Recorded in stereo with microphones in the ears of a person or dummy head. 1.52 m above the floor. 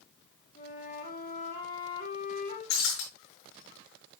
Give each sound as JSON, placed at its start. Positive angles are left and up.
{"t": 0.6, "sound": "a flute", "side_deg": 45, "distance_m": 2.5}
{"t": 2.7, "sound": "breaking glass", "side_deg": 75, "distance_m": 6.5}